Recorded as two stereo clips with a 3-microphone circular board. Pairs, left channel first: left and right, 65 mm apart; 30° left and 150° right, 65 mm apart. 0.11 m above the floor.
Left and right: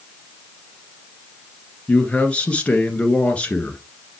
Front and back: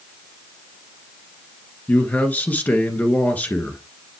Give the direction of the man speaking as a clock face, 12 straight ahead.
10 o'clock.